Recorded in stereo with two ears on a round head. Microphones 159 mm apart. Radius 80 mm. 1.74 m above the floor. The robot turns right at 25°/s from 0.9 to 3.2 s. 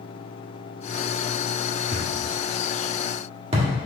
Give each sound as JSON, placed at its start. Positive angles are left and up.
{"t": 1.9, "sound": "a thud", "side_deg": -40, "distance_m": 1.5}